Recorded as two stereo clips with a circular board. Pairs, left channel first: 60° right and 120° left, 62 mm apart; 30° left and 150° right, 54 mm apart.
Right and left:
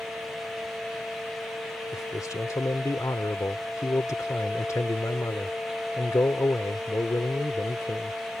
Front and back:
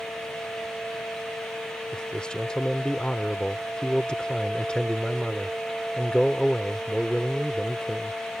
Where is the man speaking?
40° right.